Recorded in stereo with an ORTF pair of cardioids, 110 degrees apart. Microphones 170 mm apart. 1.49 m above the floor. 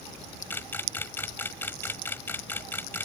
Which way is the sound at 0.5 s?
15° left.